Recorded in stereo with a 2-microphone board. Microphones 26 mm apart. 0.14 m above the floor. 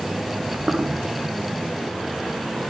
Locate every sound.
0.3 s footsteps: 65° right (ahead or behind), 5 m